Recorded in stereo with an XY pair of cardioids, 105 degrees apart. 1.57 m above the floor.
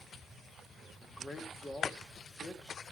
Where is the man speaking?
20° left, 4 m.